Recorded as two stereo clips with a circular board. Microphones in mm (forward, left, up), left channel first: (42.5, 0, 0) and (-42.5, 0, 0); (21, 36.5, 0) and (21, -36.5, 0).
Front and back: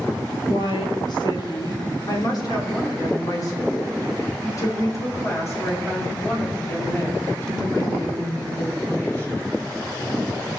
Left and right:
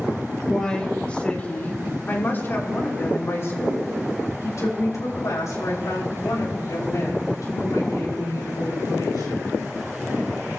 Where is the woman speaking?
10° left, 2.5 m; by 9.5 s 65° left, 6.5 m.